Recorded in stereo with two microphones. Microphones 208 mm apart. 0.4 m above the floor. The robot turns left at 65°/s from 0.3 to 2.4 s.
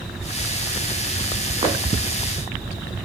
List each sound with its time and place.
1.6 s footsteps: 30° right (ahead or behind), 6 m; by 1.8 s 20° right (ahead or behind), 6 m